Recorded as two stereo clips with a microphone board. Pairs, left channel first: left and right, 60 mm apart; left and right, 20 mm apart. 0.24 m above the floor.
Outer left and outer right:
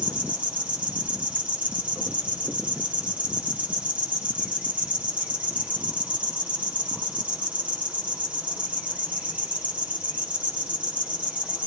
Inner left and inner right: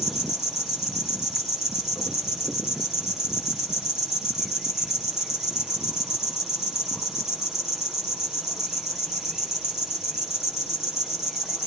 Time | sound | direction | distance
0.0 | an insect | 25° right (ahead or behind) | 3.5 m